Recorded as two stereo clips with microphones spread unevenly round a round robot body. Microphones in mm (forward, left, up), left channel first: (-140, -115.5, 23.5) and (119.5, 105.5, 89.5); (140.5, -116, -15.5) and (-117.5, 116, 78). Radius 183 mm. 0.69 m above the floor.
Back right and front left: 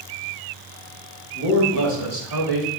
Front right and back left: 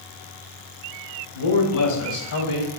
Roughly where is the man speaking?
Ahead.